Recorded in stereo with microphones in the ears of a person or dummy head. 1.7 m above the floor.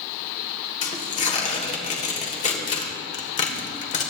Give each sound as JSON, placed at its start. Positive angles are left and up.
{"t": 0.8, "sound": "tearing paper", "side_deg": 35, "distance_m": 1.5}